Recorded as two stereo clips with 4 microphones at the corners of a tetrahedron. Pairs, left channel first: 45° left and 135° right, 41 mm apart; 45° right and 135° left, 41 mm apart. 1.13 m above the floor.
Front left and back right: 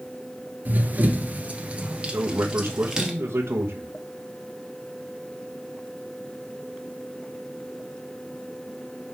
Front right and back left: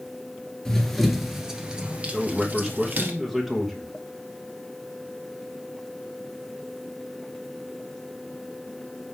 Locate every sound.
0.7 s running footsteps: 125° right, 1.4 m; by 3.1 s 155° left, 1.9 m
2.1 s a man speaking: 145° right, 1.2 m